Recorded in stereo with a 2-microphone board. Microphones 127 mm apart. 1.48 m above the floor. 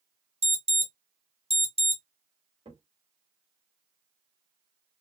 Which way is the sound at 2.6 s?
45° right (ahead or behind).